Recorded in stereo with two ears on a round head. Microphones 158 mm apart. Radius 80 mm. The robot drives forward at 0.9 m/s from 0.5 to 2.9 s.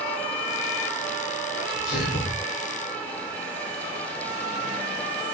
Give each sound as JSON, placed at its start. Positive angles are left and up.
{"t": 1.6, "sound": "a sneeze", "side_deg": 65, "distance_m": 10.0}